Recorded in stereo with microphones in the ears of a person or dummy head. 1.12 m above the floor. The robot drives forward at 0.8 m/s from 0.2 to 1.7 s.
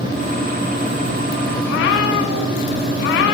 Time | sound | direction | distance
1.6 | a cat meowing | 55° left (ahead or behind) | 2 m